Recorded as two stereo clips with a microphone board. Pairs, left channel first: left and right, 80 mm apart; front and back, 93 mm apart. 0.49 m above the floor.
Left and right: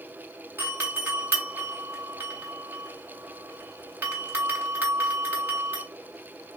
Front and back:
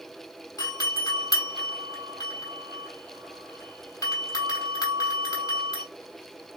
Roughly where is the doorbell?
Ahead right.